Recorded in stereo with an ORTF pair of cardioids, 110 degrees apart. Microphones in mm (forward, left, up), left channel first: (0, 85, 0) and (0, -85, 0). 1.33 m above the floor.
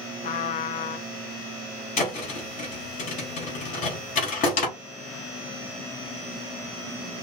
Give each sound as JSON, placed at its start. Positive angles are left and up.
{"t": 0.2, "sound": "a trumpet", "azimuth_deg": 50, "distance_m": 0.6}
{"t": 2.0, "sound": "a thud", "azimuth_deg": 55, "distance_m": 3.0}